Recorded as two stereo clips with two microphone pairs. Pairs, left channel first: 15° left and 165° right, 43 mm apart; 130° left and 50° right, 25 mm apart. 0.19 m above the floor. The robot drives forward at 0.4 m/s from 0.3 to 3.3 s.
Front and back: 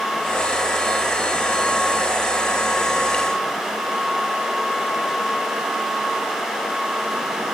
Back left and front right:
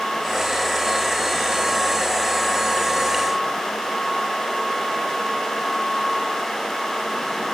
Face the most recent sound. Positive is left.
No sound to turn to.